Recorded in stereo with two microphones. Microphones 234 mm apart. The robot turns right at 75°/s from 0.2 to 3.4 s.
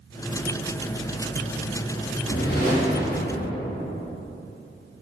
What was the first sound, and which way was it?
A whoosh, 110° left.